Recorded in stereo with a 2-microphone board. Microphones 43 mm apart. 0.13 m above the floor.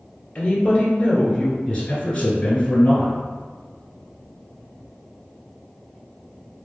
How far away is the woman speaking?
About 1.5 m.